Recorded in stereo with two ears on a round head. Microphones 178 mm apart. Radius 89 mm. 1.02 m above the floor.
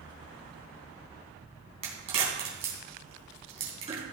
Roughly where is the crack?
Right.